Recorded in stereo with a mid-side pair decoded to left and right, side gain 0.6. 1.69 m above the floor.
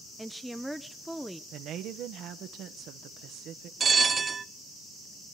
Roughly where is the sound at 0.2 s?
Ahead.